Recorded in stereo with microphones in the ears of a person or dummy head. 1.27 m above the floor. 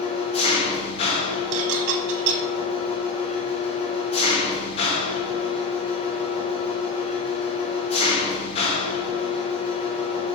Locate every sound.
0.0 s an engine running: 35° left (ahead or behind), 0.8 m
1.5 s dishes clattering: 70° right (ahead or behind), 1.2 m